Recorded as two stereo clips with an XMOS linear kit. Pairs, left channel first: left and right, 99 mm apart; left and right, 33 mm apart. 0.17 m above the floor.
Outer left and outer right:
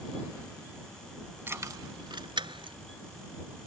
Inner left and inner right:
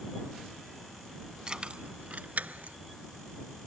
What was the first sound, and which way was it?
Keys jangling, 25° right (ahead or behind).